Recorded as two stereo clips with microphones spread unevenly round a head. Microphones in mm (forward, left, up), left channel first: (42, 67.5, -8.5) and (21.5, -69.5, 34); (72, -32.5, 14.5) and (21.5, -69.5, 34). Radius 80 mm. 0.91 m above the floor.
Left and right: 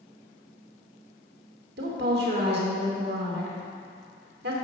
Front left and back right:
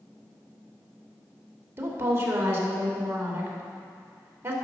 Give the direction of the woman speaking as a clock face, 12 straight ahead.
3 o'clock.